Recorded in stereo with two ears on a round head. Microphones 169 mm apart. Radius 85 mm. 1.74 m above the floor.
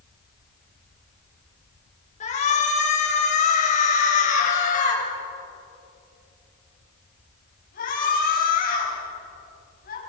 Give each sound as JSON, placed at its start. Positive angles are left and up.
{"t": 2.2, "sound": "a shout", "side_deg": 35, "distance_m": 7.0}